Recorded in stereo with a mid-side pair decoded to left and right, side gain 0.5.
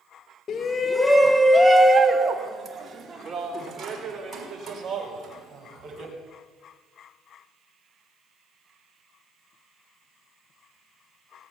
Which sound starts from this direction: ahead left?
A shout, at 0.5 s.